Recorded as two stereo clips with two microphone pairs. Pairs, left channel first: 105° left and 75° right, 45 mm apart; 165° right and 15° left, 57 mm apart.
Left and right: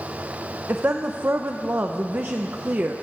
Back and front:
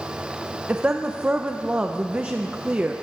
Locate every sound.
0.7 s a woman speaking: 50° right, 0.5 m